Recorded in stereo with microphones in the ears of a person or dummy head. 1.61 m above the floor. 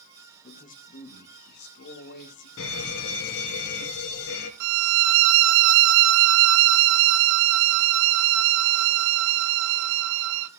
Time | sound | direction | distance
0.4 | a man speaking | 35° left (ahead or behind) | 1.6 m
2.6 | a fire alarm | 60° left (ahead or behind) | 2.5 m
4.6 | a violin | 65° right (ahead or behind) | 0.8 m